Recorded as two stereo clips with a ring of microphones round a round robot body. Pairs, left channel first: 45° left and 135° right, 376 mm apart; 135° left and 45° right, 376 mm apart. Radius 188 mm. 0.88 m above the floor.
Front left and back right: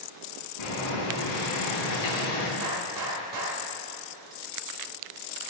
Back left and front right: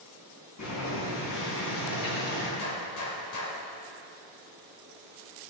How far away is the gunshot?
About 2.5 m.